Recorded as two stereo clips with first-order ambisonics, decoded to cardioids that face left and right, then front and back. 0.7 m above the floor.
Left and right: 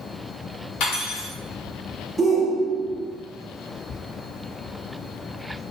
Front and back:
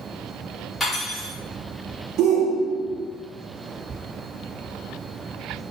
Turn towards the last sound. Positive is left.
turn(degrees=-165)